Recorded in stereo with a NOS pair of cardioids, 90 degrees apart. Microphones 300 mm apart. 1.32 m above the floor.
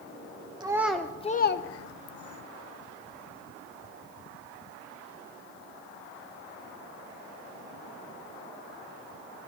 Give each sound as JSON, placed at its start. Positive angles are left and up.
{"t": 0.6, "sound": "a child speaking", "azimuth_deg": -15, "distance_m": 0.8}